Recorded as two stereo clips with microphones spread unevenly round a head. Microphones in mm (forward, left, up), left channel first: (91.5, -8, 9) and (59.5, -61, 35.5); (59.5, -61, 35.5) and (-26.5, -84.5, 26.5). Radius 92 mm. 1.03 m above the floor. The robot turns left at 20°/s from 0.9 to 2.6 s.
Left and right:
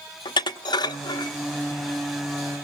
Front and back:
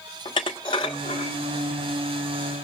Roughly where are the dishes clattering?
Left.